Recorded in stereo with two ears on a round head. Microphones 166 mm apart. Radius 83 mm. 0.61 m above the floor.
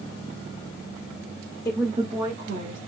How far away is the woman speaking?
About 0.6 m.